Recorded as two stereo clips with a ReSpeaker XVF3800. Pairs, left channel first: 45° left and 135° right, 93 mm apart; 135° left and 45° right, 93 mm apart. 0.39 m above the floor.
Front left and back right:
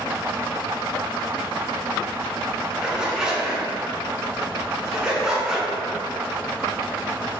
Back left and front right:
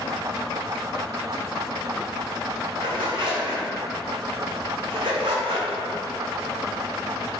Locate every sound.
2.8 s a zipper: 55° right, 0.5 m